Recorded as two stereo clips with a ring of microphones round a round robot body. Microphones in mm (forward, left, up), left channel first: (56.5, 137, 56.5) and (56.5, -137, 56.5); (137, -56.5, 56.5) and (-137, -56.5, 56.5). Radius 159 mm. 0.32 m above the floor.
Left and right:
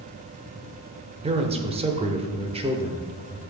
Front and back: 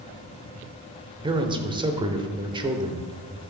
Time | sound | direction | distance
1.2 | a man speaking | 130° right | 0.9 m